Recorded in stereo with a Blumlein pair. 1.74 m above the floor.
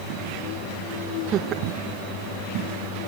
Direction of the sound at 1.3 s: 30° right.